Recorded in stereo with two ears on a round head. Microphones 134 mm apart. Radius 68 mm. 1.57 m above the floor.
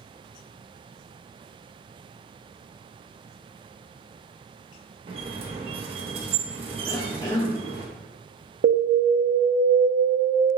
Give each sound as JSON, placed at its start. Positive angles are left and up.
{"t": 5.1, "sound": "a squeak", "side_deg": -35, "distance_m": 0.5}
{"t": 6.9, "sound": "a cough", "side_deg": 25, "distance_m": 0.5}
{"t": 8.6, "sound": "an alarm", "side_deg": -60, "distance_m": 0.5}